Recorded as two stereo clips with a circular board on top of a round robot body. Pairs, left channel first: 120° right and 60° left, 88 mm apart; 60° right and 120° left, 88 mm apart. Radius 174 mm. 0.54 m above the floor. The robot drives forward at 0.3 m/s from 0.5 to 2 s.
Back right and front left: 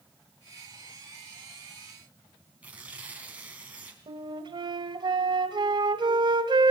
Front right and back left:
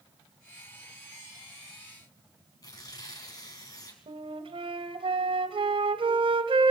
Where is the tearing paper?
15° right, 4 m.